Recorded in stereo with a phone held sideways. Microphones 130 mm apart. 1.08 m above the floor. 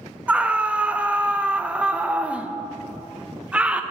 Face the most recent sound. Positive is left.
turn(degrees=-10)  # may be behind; listen again after turning